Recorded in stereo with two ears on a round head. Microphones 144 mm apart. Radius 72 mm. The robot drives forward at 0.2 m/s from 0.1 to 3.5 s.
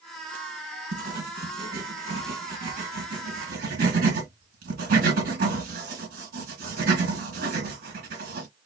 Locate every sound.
0.9 s writing: 70° right (ahead or behind), 2.5 m; by 8.5 s 60° right (ahead or behind), 3 m